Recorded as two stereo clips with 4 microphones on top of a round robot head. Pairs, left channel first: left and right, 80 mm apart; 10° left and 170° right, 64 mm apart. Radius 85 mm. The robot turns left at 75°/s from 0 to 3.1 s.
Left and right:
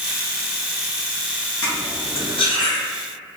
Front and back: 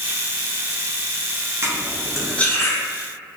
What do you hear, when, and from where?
1.6 s cutlery clinking: 140° left, 0.7 m; by 2.8 s 50° left, 0.7 m